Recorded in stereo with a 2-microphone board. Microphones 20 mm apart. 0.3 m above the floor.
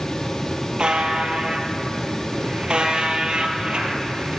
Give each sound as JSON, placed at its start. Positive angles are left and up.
{"t": 0.8, "sound": "a buzzer", "side_deg": -50, "distance_m": 1.7}